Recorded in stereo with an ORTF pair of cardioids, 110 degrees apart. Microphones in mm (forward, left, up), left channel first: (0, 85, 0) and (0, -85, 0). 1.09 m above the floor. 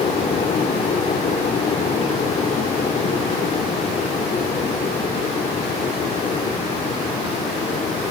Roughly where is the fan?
Ahead left.